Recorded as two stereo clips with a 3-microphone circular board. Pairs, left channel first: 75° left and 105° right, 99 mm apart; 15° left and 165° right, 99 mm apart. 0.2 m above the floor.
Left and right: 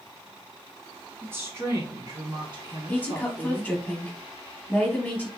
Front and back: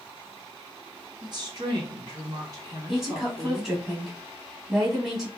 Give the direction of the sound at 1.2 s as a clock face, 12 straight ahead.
6 o'clock.